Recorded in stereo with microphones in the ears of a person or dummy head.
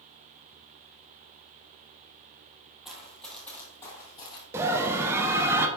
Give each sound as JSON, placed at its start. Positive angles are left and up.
{"t": 2.9, "sound": "running footsteps", "side_deg": 0, "distance_m": 1.7}
{"t": 4.5, "sound": "a scream", "side_deg": -10, "distance_m": 0.7}